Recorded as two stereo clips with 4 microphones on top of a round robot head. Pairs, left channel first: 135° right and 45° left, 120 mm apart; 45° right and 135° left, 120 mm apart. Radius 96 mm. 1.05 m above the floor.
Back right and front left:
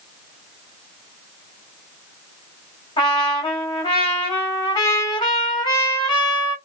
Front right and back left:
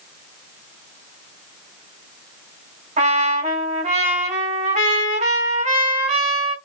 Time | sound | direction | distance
3.0 | a trumpet | 170° left | 3 m